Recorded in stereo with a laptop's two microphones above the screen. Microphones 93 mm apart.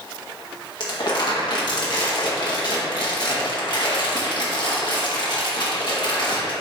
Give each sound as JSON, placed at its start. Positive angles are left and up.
{"t": 0.8, "sound": "crumpling", "side_deg": 55, "distance_m": 0.9}